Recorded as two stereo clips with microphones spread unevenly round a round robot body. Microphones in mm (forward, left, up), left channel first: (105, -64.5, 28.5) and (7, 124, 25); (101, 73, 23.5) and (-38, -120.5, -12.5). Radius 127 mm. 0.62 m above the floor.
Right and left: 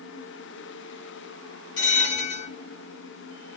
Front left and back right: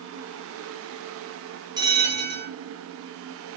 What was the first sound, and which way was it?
A bell, 50° right.